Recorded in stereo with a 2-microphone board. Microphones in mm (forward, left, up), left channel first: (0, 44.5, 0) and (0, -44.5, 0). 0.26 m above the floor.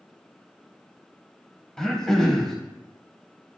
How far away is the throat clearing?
About 0.9 m.